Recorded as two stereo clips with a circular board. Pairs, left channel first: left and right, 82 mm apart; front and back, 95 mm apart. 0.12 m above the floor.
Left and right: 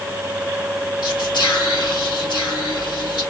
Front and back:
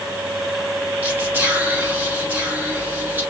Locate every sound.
1.0 s whispering: 110° left, 3.5 m